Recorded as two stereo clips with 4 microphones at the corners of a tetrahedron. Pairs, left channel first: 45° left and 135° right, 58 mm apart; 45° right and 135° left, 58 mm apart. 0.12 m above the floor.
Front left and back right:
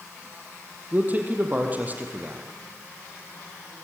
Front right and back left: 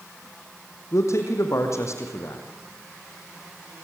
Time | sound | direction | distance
0.9 | a man speaking | 75° right | 4.5 m